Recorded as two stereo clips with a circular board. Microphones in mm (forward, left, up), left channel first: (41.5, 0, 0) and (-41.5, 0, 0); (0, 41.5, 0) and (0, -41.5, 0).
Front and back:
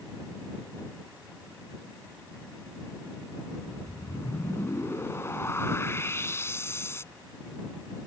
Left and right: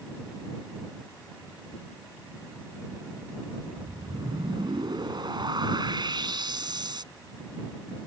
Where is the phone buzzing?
I don't hear a phone buzzing.